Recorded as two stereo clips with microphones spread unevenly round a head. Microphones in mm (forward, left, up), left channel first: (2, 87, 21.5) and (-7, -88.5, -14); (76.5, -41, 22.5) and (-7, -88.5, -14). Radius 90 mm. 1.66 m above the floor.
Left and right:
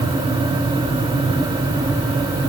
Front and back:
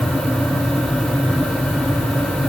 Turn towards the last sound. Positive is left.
No sound to turn to.